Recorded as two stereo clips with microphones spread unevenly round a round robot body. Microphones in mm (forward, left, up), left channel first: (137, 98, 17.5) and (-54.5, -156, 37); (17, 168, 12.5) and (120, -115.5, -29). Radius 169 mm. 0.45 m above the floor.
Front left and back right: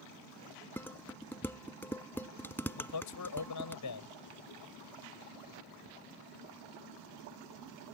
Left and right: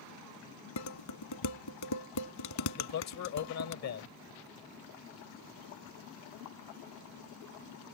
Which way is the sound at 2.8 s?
80° left.